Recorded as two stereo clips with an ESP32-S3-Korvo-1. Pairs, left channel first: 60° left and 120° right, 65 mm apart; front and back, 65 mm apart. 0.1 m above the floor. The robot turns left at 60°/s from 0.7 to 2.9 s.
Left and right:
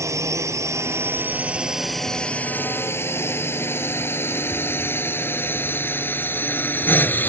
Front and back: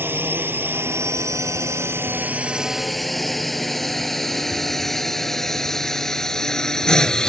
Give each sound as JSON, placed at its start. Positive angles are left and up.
{"t": 0.0, "sound": "a drone", "azimuth_deg": -135}